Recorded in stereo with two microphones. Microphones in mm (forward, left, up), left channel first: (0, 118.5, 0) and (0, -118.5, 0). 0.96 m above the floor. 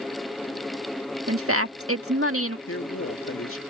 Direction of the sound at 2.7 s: 65° left (ahead or behind).